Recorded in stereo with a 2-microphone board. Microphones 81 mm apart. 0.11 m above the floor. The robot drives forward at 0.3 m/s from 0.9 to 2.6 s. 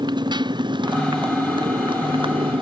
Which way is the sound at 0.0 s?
60° right (ahead or behind).